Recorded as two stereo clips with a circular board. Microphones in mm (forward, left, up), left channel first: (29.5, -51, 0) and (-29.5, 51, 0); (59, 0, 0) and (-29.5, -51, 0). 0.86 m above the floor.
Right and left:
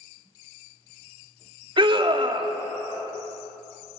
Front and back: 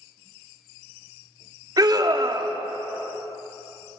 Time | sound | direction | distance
1.8 | a scream | 165° left | 1.7 m